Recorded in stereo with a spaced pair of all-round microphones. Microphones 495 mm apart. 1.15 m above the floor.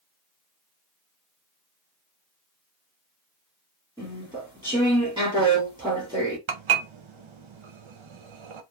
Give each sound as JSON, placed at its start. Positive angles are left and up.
{"t": 4.0, "sound": "chewing", "side_deg": -10, "distance_m": 1.5}
{"t": 6.5, "sound": "dishes clattering", "side_deg": -70, "distance_m": 0.6}